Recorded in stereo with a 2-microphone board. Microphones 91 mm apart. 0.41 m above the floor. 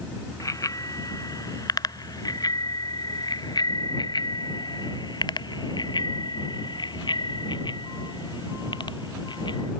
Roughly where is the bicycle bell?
Left.